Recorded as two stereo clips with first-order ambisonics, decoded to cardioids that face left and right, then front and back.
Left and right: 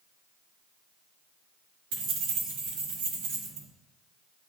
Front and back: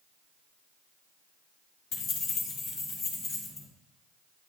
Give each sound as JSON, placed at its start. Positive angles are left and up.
{"t": 1.9, "sound": "keys jangling", "azimuth_deg": -60, "distance_m": 1.3}